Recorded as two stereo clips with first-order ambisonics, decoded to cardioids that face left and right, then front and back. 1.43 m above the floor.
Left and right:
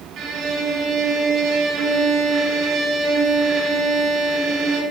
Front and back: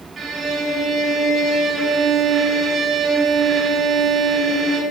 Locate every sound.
0.2 s a violin: 120° right, 1.2 m